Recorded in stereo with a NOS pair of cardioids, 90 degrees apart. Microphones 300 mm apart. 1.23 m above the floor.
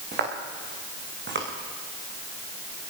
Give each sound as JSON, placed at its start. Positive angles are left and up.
{"t": 0.1, "sound": "footsteps", "azimuth_deg": -35, "distance_m": 6.0}